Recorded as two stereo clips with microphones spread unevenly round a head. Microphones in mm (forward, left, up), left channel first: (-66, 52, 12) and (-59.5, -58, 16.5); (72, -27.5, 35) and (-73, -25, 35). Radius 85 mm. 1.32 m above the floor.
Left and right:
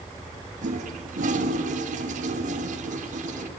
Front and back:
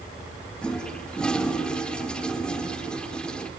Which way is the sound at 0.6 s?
85° right.